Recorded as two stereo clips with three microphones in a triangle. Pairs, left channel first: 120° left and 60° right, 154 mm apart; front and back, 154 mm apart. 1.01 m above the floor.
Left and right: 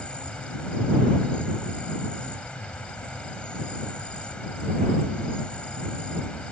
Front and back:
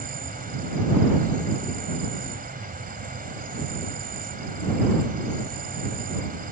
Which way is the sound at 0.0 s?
155° right.